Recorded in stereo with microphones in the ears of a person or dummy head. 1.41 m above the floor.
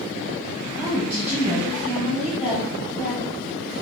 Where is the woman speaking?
5° right (ahead or behind), 1.2 m.